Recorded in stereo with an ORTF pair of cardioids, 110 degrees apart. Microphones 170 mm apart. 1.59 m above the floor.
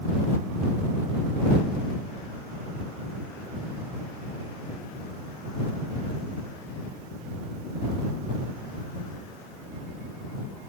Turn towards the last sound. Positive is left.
No sound to turn to.